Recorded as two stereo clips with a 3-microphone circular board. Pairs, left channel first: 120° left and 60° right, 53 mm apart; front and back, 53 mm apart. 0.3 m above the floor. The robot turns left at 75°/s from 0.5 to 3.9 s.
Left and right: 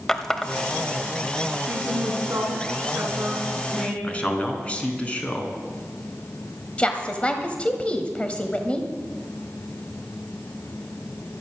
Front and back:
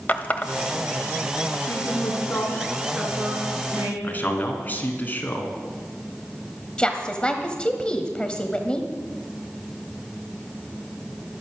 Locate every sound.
0.1 s a running tap: 45° left, 1.0 m; by 1.6 s 35° right, 1.0 m
1.7 s a woman speaking: straight ahead, 2.5 m; by 3.9 s 165° right, 2.5 m
4.0 s a man speaking: 60° left, 2.5 m
6.8 s a woman speaking: 65° left, 1.4 m